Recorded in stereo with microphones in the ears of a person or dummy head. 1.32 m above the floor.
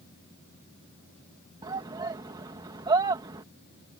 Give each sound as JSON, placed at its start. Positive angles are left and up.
{"t": 1.6, "sound": "a shout", "side_deg": -20}